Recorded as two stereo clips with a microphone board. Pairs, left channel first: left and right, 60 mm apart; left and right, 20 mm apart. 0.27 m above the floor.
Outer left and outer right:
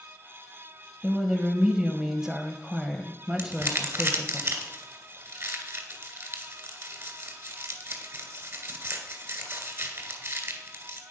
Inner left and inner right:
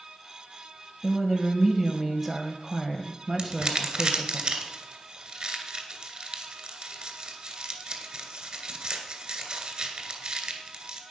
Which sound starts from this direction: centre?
A woman speaking, at 1.0 s.